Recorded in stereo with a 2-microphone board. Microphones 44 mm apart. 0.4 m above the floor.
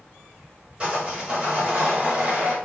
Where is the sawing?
25° right (ahead or behind), 1.2 m.